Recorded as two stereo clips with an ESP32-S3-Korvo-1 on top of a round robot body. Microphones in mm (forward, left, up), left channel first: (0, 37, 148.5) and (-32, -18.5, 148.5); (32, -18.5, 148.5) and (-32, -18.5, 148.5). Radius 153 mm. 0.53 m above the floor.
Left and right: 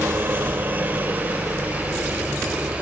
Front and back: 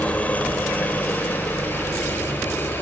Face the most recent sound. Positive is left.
turn(degrees=-50)